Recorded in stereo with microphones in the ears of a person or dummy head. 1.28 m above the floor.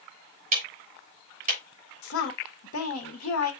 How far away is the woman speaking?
About 1.4 m.